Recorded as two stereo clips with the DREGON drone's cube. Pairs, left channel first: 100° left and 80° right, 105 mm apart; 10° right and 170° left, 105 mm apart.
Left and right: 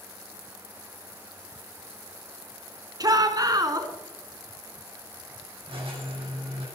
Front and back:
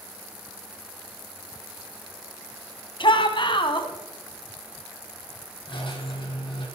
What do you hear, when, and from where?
3.0 s a shout: 35° right, 2.5 m
5.7 s a squeak: 45° right, 5 m